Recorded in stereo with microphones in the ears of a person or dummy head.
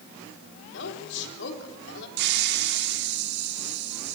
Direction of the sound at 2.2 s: 70° right (ahead or behind).